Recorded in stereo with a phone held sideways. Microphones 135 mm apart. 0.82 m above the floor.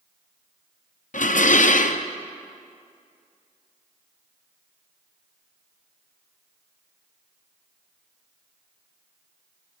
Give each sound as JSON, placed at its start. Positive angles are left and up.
{"t": 1.1, "sound": "dishes clattering", "side_deg": 70, "distance_m": 0.5}